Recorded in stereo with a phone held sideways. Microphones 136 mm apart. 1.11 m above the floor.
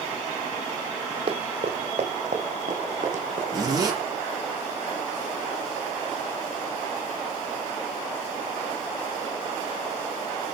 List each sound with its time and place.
1.3 s running footsteps: 45° right (ahead or behind), 2.5 m; by 3.4 s 60° right (ahead or behind), 4.5 m
3.5 s a zipper: 25° right (ahead or behind), 6 m